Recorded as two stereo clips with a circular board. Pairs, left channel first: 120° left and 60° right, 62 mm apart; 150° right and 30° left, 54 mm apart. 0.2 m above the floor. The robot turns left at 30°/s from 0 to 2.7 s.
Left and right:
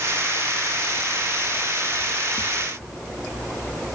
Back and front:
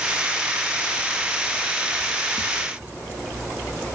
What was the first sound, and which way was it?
Only background noise.